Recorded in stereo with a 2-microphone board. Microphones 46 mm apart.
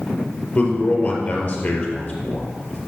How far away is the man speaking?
About 3 m.